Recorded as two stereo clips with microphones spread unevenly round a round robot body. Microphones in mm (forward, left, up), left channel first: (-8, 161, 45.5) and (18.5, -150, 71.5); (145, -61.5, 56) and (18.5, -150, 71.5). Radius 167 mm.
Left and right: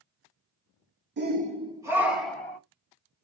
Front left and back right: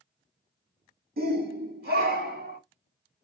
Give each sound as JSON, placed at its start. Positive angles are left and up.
{"t": 1.2, "sound": "a shout", "azimuth_deg": -140, "distance_m": 1.7}